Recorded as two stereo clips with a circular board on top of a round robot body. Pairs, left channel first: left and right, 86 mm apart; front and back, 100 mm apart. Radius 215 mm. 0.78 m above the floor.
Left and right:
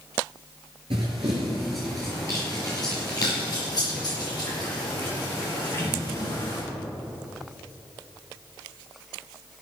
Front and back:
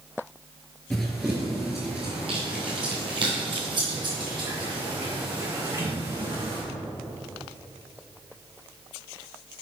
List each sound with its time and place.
0.9 s running footsteps: 75° right, 0.9 m; by 6.6 s 135° left, 4 m